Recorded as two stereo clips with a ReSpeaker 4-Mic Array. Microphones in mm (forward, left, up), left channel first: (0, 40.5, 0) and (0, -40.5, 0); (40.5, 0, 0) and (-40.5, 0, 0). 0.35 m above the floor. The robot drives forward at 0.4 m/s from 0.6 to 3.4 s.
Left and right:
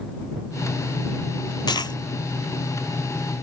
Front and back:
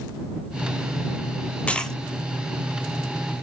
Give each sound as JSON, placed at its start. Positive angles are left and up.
{"t": 1.7, "sound": "a dropped coin", "azimuth_deg": 75, "distance_m": 0.7}